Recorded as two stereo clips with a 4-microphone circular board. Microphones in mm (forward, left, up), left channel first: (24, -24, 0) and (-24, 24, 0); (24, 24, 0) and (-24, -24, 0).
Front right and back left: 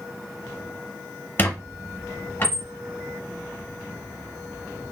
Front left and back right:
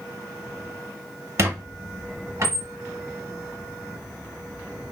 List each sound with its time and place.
1.4 s a squeak: 100° right, 0.7 m